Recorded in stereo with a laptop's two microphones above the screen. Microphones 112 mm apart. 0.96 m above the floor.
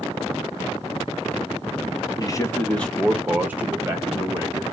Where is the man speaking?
35° left (ahead or behind), 0.8 m; by 4.6 s 30° right (ahead or behind), 1.7 m.